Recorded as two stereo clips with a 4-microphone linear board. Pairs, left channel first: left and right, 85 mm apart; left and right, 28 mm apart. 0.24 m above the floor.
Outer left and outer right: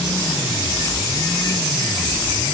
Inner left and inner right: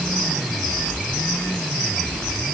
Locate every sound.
Only background noise.